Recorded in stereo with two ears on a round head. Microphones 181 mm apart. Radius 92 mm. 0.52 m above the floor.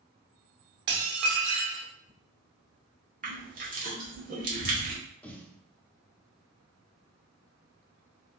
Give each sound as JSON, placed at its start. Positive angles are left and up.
{"t": 0.9, "sound": "dishes clattering", "side_deg": -60, "distance_m": 0.9}
{"t": 3.2, "sound": "crushing", "side_deg": -40, "distance_m": 1.2}
{"t": 5.2, "sound": "a snare drum", "side_deg": 10, "distance_m": 0.7}